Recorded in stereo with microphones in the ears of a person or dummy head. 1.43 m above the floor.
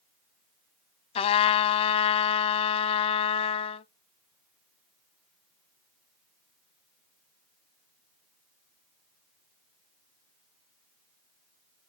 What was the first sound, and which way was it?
A trumpet, 35° left (ahead or behind).